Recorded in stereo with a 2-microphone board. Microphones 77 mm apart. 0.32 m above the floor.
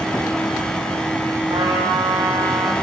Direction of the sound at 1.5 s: 65° right (ahead or behind).